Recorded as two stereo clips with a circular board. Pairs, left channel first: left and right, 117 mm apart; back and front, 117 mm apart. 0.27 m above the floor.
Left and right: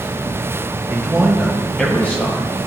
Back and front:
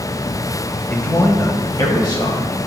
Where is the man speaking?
130° right, 0.9 m; by 2.5 s 150° left, 1.3 m.